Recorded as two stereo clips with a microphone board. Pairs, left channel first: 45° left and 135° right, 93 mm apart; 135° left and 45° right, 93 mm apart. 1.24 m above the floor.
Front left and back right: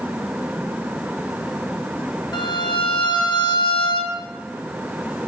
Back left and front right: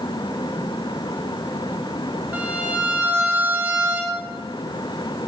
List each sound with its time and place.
2.3 s a violin: 20° left, 0.9 m